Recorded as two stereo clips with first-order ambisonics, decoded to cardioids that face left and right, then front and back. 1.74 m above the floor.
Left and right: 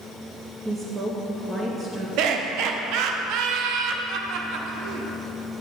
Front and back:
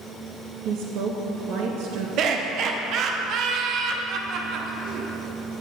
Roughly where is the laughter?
Behind right.